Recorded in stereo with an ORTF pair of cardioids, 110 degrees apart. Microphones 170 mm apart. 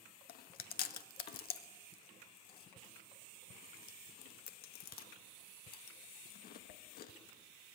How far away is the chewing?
About 1.7 m.